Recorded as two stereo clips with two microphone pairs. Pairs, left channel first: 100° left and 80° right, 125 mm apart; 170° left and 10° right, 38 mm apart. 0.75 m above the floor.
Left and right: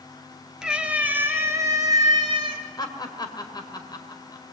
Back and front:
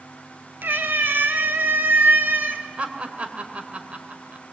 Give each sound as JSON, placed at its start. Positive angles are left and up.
{"t": 0.6, "sound": "a cat meowing", "azimuth_deg": 5, "distance_m": 2.0}
{"t": 2.8, "sound": "laughter", "azimuth_deg": 45, "distance_m": 2.5}